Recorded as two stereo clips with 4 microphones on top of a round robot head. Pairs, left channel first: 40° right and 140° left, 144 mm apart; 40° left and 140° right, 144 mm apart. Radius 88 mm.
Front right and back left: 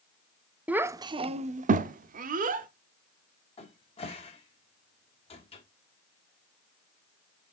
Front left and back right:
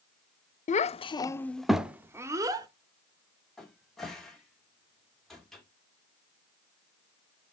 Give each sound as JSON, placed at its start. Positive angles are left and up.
{"t": 0.7, "sound": "a child speaking", "azimuth_deg": 60, "distance_m": 0.5}
{"t": 3.6, "sound": "a cupboard door", "azimuth_deg": -45, "distance_m": 1.8}